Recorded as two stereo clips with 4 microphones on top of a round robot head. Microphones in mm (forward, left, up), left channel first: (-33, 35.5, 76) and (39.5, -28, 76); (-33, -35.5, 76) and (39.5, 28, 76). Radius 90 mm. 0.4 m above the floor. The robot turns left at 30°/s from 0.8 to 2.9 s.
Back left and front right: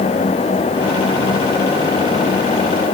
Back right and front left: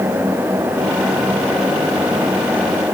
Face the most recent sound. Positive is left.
No sound to turn to.